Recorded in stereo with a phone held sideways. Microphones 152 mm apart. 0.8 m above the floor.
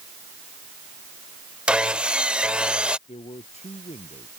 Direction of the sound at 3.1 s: 45° left (ahead or behind).